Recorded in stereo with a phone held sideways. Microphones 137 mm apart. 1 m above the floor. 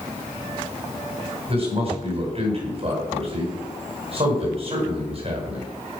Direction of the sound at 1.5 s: 45° right (ahead or behind).